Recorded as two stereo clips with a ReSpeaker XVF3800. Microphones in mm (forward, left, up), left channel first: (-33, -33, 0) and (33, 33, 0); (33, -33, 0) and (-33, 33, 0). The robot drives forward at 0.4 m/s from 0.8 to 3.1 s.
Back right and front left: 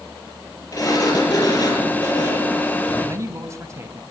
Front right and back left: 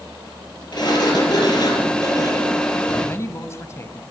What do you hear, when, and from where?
0.7 s a sliding door: 85° right, 6.5 m; by 3.2 s 95° right, 6.5 m
3.0 s a man speaking: straight ahead, 2 m